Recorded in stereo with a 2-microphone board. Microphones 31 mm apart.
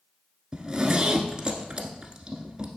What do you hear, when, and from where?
0.5 s a zipper: 20° right (ahead or behind), 1.0 m